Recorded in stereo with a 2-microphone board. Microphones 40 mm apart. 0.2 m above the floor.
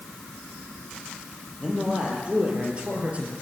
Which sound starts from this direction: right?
A man speaking, at 1.6 s.